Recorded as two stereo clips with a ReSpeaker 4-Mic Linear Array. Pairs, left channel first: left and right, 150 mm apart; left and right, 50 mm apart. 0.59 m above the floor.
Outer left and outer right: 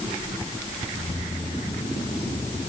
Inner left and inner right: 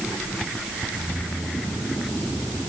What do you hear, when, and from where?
0.9 s keys jangling: 40° left (ahead or behind); by 2.7 s 45° left (ahead or behind)